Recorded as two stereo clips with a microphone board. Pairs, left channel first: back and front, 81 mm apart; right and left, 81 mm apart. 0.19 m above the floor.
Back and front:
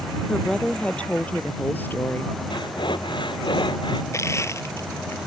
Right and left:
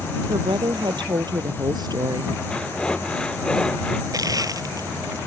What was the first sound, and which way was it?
A woman speaking, 100° left.